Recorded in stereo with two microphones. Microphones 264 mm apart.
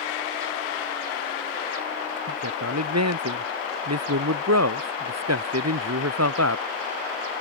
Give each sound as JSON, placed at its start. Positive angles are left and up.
{"t": 2.3, "sound": "a man speaking", "side_deg": -80}